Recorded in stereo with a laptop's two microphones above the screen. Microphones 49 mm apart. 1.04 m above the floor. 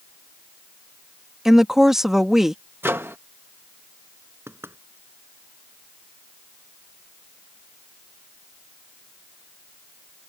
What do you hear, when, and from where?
1.4 s a woman speaking: 10° right (ahead or behind)
2.8 s a microwave: 50° right (ahead or behind)
4.5 s knocking: 55° right (ahead or behind)